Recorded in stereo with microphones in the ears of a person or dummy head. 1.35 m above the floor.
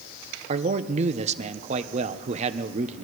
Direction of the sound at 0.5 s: 40° right (ahead or behind).